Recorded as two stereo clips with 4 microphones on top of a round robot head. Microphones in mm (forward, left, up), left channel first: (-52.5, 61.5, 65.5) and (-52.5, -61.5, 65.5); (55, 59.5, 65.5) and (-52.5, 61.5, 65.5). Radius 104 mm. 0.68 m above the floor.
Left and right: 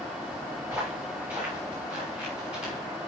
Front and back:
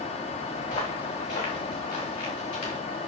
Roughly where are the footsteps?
Ahead.